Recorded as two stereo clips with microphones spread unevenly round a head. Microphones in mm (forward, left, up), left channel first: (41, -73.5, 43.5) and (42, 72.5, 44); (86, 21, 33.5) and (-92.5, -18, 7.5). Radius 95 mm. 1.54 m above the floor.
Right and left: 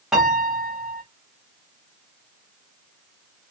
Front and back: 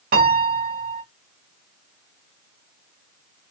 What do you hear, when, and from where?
0.1 s a piano: 175° left, 0.8 m